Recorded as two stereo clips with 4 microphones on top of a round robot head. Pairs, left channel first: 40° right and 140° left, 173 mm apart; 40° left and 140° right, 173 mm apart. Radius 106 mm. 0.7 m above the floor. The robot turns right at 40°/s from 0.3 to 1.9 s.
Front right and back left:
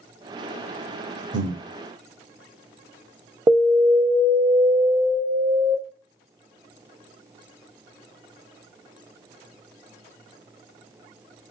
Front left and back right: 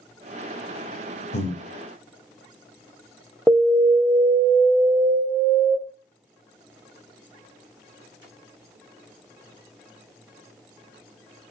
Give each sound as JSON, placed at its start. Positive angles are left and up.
{"t": 1.3, "sound": "breathing", "azimuth_deg": 95, "distance_m": 0.7}
{"t": 3.5, "sound": "an alarm", "azimuth_deg": 120, "distance_m": 0.8}